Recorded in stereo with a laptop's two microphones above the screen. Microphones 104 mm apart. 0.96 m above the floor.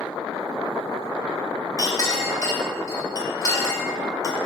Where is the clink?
35° left (ahead or behind), 2 m.